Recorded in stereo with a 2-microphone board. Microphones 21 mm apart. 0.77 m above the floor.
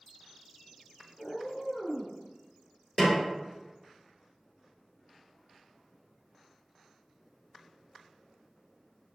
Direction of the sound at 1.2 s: 25° left (ahead or behind).